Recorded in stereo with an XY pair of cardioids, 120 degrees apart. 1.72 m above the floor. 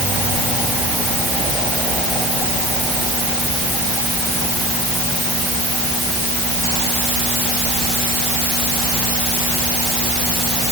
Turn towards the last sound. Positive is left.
No sound to turn to.